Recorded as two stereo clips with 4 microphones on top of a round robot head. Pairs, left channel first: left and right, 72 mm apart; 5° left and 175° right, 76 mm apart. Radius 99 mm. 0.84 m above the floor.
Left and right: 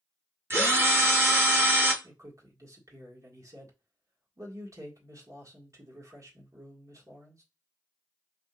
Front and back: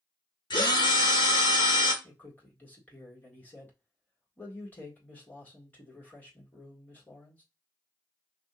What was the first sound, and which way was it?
A drill, 35° right.